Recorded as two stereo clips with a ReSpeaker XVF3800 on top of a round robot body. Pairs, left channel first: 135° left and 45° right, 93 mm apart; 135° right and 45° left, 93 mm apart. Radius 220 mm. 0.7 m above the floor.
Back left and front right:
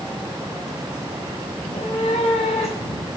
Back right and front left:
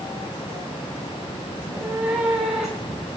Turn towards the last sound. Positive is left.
turn(degrees=130)